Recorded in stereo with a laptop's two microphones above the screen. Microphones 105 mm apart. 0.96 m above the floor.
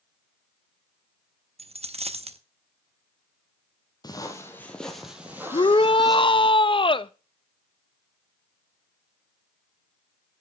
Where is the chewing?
No chewing in this recording.